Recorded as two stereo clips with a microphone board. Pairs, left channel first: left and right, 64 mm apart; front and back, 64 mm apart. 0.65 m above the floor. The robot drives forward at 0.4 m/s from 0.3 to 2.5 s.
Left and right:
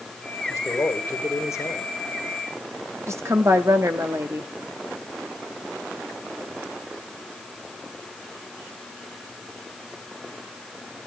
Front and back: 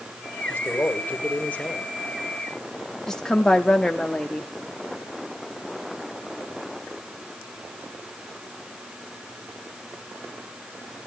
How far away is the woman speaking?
About 1.2 m.